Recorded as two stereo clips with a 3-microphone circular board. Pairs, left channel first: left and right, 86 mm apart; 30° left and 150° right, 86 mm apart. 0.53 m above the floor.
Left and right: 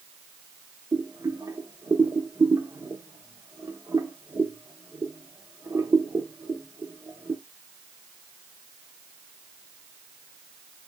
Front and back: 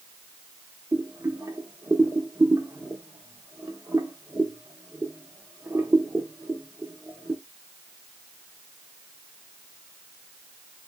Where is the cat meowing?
No cat meowing in this recording.